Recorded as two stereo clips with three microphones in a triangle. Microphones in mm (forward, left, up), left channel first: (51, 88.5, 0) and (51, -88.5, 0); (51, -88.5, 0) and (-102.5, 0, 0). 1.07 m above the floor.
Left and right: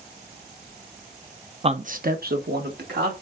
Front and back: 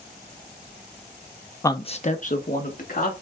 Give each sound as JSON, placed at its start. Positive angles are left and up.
{"t": 1.6, "sound": "a man speaking", "azimuth_deg": -90, "distance_m": 0.6}